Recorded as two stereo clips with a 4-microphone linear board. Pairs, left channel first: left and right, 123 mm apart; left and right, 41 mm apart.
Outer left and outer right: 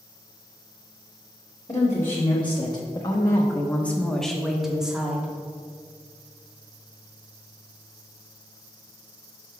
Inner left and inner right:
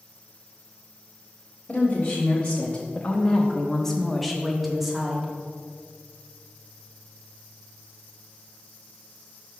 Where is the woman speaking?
40° left (ahead or behind), 1.1 m; by 5.3 s 10° right (ahead or behind), 1.3 m.